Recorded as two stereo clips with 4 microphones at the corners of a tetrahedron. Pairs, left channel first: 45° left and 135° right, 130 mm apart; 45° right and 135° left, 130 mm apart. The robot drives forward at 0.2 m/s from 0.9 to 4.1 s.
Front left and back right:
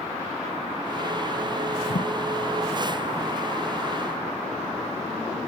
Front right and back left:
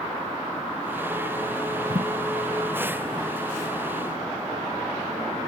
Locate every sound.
1.9 s a thud: 60° left, 0.8 m